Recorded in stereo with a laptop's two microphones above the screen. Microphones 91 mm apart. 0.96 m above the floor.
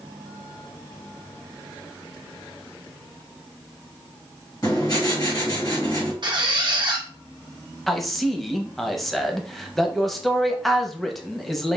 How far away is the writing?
About 1.6 m.